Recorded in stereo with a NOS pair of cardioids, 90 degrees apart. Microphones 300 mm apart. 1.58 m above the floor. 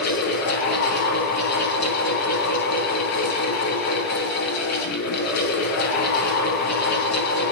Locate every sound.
0.0 s a fan: 60° left, 5.5 m